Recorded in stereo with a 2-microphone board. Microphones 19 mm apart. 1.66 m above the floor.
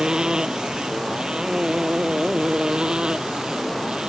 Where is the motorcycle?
45° right (ahead or behind); by 4.1 s 55° right (ahead or behind).